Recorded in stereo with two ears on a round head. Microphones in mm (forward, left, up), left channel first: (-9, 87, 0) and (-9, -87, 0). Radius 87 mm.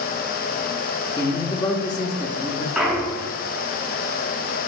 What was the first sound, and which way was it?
A man speaking, 20° left (ahead or behind).